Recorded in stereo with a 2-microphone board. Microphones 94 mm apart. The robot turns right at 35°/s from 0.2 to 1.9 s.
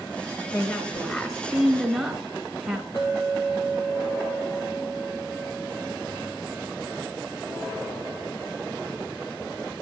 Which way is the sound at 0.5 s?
10° left (ahead or behind).